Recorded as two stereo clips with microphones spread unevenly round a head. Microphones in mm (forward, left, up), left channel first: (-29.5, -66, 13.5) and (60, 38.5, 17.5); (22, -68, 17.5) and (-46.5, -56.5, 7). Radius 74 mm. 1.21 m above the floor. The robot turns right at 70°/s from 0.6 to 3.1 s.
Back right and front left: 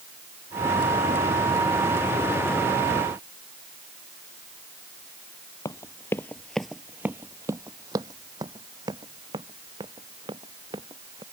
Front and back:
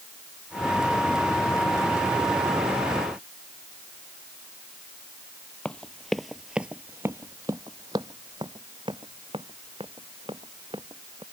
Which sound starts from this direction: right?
Running footsteps, at 5.7 s.